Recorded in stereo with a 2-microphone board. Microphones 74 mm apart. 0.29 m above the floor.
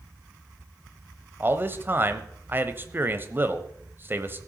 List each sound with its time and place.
1.4 s a man speaking: 30° right (ahead or behind), 1.1 m